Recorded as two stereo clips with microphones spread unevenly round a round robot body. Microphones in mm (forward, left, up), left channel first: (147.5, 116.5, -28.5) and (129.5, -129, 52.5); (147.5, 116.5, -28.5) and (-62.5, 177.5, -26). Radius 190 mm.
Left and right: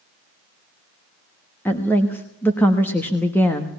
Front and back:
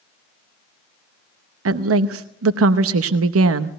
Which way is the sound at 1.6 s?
165° left.